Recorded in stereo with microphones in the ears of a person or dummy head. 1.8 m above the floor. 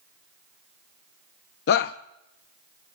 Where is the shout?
65° left (ahead or behind), 0.5 m.